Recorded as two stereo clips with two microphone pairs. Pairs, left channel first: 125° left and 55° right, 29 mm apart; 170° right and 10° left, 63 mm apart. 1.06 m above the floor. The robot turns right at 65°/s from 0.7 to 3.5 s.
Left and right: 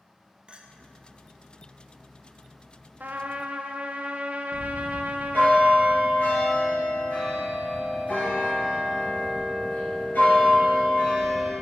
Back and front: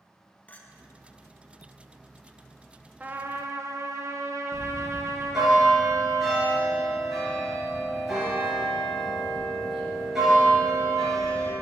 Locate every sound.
0.5 s a clink: 105° right, 0.6 m
3.0 s a trumpet: 60° right, 0.5 m; by 5.5 s 25° right, 0.5 m
4.5 s a bell: 95° left, 2.5 m